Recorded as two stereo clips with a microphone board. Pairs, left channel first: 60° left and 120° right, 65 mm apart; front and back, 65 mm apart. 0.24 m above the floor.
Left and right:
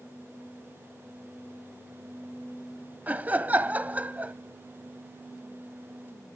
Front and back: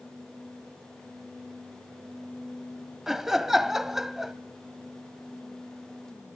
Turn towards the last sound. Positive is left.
turn(degrees=-100)